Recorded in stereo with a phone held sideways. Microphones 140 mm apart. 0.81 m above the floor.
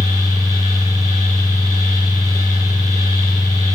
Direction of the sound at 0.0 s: 25° right (ahead or behind).